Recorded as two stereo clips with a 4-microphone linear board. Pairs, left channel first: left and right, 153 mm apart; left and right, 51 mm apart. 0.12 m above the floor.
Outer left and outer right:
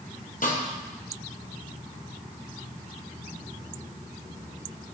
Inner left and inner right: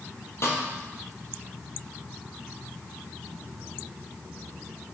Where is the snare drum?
65° left (ahead or behind), 2 m.